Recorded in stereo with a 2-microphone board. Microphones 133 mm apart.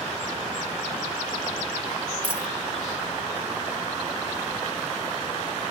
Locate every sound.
2.2 s a dropped coin: 35° right (ahead or behind), 0.7 m